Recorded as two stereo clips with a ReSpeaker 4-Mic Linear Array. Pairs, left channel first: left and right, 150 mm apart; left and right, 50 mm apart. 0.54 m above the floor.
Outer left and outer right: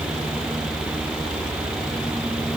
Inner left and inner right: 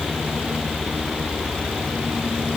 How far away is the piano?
No piano in this recording.